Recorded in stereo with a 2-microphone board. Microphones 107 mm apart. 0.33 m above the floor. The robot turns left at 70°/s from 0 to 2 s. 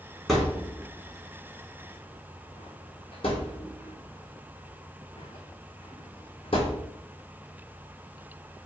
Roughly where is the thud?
Centre.